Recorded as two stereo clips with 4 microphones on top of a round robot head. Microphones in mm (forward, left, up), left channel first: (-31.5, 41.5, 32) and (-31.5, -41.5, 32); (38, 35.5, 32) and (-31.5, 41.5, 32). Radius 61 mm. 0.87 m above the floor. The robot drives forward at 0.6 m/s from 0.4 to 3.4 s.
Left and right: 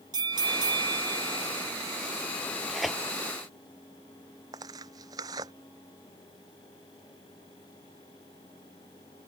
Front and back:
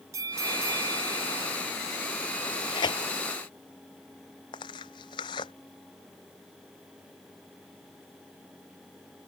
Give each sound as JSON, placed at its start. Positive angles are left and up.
{"t": 0.1, "sound": "a bell", "azimuth_deg": -125}
{"t": 2.4, "sound": "tearing paper", "azimuth_deg": 0}
{"t": 4.5, "sound": "tearing paper", "azimuth_deg": -35}